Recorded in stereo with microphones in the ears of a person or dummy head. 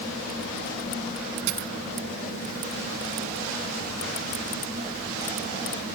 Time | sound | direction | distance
1.5 | a dropped coin | 70° right (ahead or behind) | ?